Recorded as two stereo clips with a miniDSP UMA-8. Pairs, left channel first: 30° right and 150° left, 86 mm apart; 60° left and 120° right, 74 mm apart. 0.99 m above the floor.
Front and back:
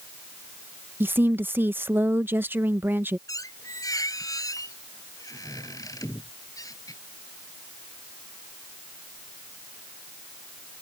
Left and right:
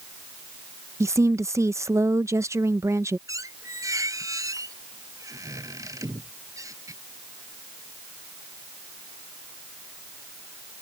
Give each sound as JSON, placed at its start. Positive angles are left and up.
{"t": 1.0, "sound": "a woman speaking", "azimuth_deg": -155}
{"t": 3.3, "sound": "a squeak", "azimuth_deg": -75}